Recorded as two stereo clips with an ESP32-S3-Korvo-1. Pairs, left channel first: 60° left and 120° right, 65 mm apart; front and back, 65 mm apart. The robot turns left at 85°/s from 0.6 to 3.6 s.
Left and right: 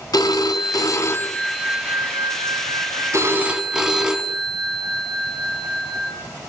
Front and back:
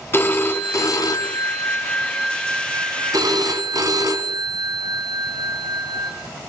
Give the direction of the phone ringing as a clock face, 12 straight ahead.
10 o'clock.